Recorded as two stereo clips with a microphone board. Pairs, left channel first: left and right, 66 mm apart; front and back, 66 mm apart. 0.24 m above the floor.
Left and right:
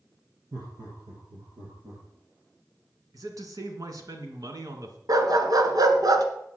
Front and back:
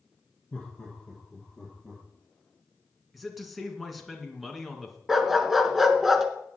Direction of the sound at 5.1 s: 95° right.